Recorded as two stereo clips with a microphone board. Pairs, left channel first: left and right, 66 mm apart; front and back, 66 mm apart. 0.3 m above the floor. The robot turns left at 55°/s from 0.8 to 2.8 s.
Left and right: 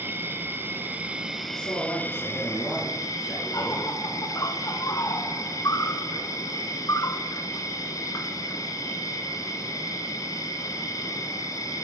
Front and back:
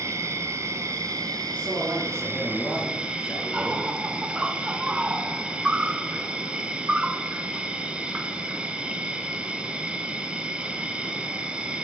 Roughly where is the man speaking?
Behind left.